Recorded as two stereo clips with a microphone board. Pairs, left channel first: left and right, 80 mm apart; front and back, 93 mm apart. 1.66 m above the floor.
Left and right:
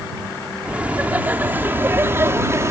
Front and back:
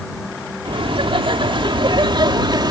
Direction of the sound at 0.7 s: 165° right.